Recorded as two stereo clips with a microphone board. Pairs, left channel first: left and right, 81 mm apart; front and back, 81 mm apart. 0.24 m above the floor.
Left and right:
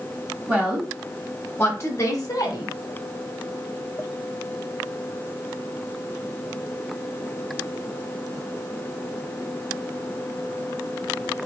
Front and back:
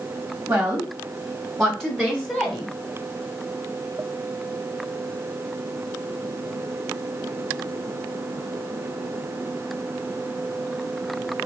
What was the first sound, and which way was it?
A woman speaking, 135° right.